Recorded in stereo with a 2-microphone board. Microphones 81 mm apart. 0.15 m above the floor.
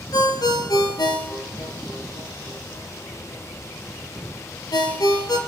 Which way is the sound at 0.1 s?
65° left (ahead or behind).